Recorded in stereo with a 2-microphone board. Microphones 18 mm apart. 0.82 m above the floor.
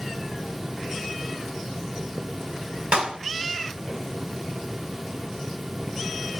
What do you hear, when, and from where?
2.9 s a clap: 85° right, 5 m